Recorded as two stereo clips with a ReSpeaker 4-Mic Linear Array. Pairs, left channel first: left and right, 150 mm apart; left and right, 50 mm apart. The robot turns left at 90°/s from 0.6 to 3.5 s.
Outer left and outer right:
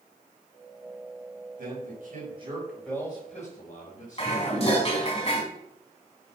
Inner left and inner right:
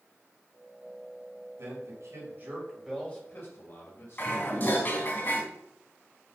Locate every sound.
1.6 s a man speaking: 65° right (ahead or behind), 4 m; by 4.8 s 60° left (ahead or behind), 4 m
4.2 s dishes clattering: 45° left (ahead or behind), 4 m